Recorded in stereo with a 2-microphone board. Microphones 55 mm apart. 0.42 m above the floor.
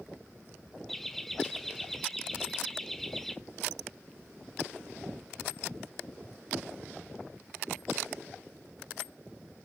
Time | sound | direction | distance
0.9 | laughter | 5° left (ahead or behind) | 0.9 m